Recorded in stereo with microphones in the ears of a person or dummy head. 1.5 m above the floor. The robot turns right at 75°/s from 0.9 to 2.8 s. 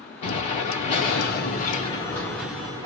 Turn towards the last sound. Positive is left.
turn(degrees=-150)